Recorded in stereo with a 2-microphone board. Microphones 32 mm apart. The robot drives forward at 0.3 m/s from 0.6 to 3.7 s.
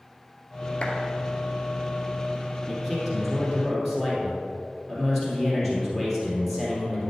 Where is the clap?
30° left (ahead or behind), 2 m.